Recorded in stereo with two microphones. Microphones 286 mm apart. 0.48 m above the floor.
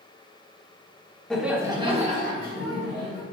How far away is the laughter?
About 1.1 m.